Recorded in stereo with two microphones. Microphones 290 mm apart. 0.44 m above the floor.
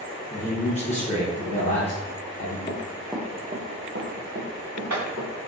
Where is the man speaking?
25° left (ahead or behind), 0.8 m.